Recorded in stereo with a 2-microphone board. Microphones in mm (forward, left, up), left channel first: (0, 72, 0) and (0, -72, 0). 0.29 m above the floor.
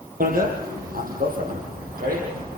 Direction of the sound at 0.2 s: 80° right.